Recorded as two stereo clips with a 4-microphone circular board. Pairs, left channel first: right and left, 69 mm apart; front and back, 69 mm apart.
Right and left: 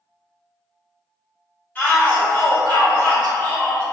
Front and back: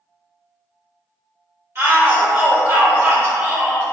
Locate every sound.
1.8 s a shout: 150° right, 1.9 m